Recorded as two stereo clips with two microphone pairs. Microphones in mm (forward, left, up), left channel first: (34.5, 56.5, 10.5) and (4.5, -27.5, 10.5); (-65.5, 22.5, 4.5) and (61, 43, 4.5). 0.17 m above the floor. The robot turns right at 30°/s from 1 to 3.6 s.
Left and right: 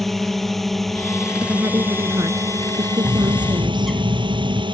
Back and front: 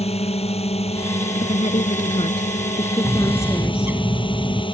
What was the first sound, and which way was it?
A drone, 155° left.